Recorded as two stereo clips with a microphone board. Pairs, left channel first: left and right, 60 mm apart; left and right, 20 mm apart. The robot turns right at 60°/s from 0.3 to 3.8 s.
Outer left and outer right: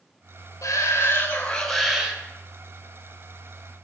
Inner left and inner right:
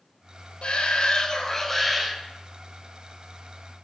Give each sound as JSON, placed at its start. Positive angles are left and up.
{"t": 0.6, "sound": "a shout", "azimuth_deg": 110, "distance_m": 1.7}